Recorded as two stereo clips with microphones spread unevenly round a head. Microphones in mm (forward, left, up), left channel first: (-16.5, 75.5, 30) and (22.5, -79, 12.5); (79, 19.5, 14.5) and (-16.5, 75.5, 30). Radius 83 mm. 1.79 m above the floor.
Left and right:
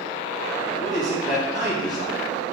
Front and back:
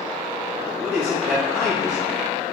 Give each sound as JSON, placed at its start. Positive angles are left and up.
{"t": 0.7, "sound": "a man speaking", "azimuth_deg": 65, "distance_m": 3.0}